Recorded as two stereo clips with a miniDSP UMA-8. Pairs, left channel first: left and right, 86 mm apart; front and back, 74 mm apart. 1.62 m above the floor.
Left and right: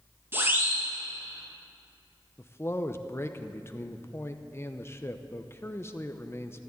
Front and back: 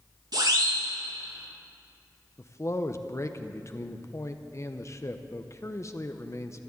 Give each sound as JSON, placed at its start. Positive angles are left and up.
{"t": 0.3, "sound": "a siren", "azimuth_deg": -155, "distance_m": 3.0}
{"t": 2.4, "sound": "a man speaking", "azimuth_deg": 35, "distance_m": 0.8}